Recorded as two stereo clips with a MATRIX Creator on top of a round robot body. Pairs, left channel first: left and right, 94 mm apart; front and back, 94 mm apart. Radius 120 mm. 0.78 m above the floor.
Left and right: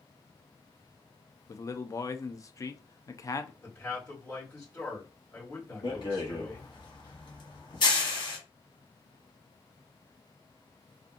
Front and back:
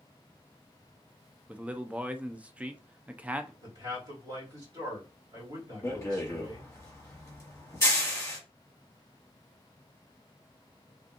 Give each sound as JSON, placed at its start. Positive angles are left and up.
{"t": 1.5, "sound": "a man speaking", "azimuth_deg": 110, "distance_m": 0.5}
{"t": 3.6, "sound": "a man speaking", "azimuth_deg": 155, "distance_m": 1.7}
{"t": 5.8, "sound": "a rattle", "azimuth_deg": 60, "distance_m": 1.2}